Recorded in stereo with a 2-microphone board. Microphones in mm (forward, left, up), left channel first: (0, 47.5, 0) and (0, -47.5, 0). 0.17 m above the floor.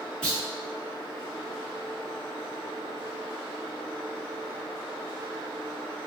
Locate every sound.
0.2 s a clunk: 10° left (ahead or behind), 1.5 m